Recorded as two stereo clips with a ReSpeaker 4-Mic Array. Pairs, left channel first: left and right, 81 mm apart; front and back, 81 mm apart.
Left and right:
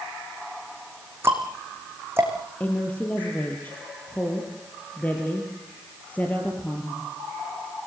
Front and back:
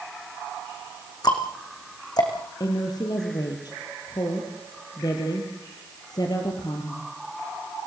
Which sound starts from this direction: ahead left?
A woman speaking, at 2.6 s.